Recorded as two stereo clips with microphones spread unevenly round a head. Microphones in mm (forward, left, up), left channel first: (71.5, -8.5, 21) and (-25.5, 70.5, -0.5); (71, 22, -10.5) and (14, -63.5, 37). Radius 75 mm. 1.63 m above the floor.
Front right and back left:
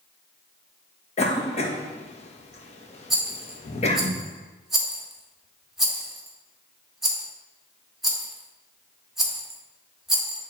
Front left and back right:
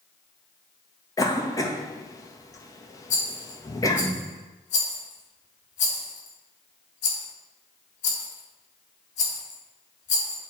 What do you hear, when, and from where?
1.2 s a cough: 10° right, 1.7 m
3.1 s a rattle: 50° left, 1.9 m